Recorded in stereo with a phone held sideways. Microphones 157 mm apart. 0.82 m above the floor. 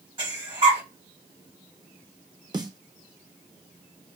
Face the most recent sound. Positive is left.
turn(degrees=-25)  # may be behind; listen again after turning